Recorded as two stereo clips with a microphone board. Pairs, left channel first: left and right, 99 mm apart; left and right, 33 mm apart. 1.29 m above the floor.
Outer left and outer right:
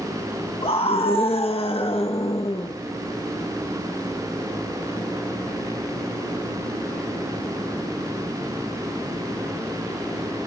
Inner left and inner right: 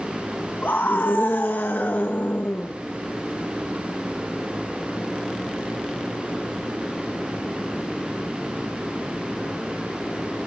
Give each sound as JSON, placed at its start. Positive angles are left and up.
{"t": 0.6, "sound": "a scream", "side_deg": 75, "distance_m": 1.4}